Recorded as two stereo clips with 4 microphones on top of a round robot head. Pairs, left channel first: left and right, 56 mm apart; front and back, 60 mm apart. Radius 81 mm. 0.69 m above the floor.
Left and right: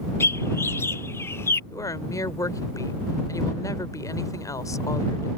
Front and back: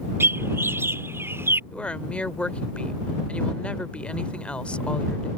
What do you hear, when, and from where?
0.2 s a bird: 135° left
1.7 s a woman speaking: 70° left